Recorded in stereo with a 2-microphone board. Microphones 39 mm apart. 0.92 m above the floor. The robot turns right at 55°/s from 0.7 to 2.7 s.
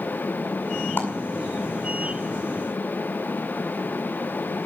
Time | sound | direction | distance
1.0 | a clap | 65° left (ahead or behind) | 7 m